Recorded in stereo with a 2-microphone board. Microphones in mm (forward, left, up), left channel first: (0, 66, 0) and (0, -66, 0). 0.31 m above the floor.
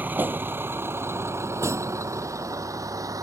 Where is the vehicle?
15° right (ahead or behind); by 3.2 s 25° right (ahead or behind).